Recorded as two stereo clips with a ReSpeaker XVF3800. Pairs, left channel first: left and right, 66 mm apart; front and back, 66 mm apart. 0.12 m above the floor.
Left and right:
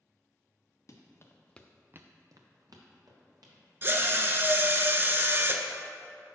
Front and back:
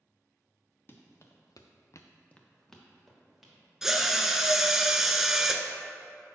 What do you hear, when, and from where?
0.9 s running footsteps: 50° left, 1.6 m; by 3.6 s 90° right, 3 m
3.8 s a drill: 100° right, 0.5 m